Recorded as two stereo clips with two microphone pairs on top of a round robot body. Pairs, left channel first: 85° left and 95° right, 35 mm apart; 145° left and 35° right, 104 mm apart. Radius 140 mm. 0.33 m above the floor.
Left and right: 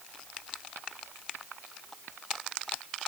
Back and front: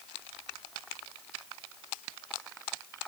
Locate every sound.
Only background noise.